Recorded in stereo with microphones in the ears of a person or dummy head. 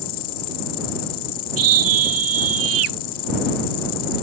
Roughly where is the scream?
Right.